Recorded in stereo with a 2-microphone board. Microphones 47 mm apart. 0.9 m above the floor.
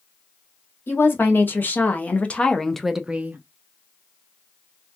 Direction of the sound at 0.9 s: 50° left (ahead or behind).